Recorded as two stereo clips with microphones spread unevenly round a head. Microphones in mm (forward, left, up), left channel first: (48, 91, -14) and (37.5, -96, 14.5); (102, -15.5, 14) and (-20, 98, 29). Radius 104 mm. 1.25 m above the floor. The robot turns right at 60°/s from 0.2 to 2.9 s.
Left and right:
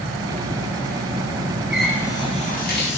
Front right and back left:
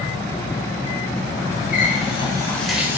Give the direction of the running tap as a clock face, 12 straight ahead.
12 o'clock.